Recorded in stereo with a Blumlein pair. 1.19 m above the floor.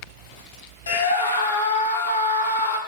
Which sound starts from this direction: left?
A scream, at 0.9 s.